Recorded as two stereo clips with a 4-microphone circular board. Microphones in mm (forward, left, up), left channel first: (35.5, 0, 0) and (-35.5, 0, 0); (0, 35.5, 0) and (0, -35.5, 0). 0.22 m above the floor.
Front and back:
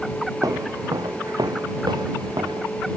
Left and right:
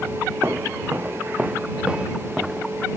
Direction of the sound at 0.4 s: 145° right.